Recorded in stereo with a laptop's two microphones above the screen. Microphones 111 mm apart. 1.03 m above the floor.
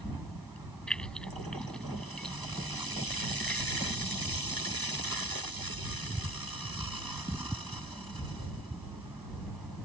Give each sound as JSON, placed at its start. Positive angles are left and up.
{"t": 0.9, "sound": "keys jangling", "side_deg": 5}